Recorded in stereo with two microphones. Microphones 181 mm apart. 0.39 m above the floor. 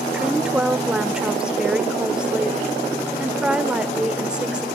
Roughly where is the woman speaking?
Centre.